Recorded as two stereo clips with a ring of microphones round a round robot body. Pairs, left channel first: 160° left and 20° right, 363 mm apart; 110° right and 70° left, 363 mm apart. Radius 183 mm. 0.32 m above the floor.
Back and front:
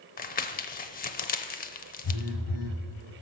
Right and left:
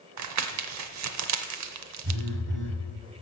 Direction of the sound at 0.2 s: 95° left.